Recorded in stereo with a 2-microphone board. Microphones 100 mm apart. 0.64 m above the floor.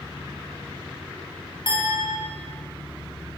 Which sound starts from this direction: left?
A clink, at 1.7 s.